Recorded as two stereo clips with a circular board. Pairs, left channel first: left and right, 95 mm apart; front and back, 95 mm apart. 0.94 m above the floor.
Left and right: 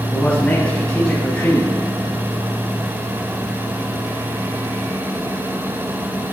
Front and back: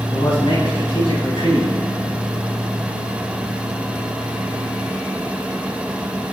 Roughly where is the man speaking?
Ahead.